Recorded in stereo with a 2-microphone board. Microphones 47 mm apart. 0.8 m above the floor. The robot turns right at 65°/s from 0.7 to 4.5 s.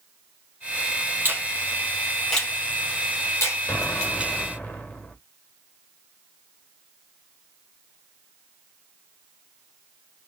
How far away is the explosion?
About 1.7 m.